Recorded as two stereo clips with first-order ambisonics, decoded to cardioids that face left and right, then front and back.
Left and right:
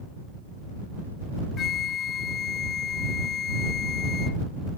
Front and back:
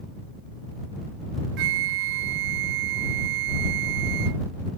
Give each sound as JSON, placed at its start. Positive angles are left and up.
{"t": 1.6, "sound": "a flute", "azimuth_deg": 155}